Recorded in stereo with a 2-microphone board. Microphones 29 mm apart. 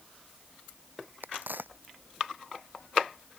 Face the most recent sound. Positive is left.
turn(degrees=-80)